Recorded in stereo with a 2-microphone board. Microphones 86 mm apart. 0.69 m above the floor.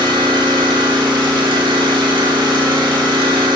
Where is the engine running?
65° right (ahead or behind), 0.8 m.